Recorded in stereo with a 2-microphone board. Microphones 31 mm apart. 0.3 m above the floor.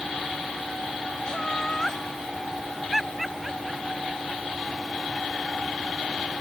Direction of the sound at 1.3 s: 25° left (ahead or behind).